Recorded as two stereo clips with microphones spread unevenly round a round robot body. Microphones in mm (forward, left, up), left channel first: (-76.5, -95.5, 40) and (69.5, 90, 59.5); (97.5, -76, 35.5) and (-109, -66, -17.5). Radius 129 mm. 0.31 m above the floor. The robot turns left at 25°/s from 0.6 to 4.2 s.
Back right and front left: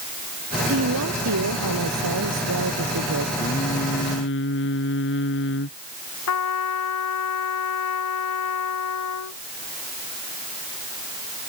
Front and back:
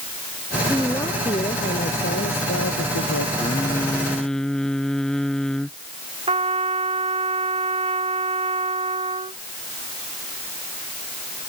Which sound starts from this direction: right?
Singing, at 3.4 s.